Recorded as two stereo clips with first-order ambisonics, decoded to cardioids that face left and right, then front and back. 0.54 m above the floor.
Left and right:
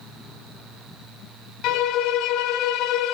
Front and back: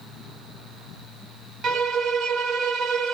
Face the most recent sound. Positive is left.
turn(degrees=125)